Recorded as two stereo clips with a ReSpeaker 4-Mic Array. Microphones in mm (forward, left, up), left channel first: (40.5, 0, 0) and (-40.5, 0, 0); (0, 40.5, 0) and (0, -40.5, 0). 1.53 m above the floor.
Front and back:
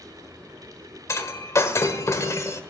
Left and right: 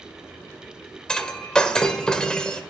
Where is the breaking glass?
15° left, 1.5 m.